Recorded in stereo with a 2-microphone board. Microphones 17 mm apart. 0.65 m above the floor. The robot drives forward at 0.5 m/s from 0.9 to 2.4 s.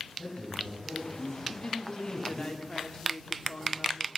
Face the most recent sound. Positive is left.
turn(degrees=45)  # may be behind; listen again after turning